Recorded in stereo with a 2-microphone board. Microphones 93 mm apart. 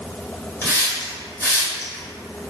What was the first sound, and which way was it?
A hiss, 30° left (ahead or behind).